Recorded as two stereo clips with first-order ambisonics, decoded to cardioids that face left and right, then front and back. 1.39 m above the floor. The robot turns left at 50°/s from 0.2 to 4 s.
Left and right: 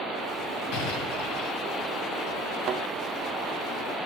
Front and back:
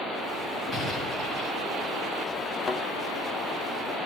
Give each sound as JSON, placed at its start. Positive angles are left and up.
{"t": 0.7, "sound": "an explosion", "azimuth_deg": 100, "distance_m": 10.0}
{"t": 2.6, "sound": "a thud", "azimuth_deg": -55, "distance_m": 1.0}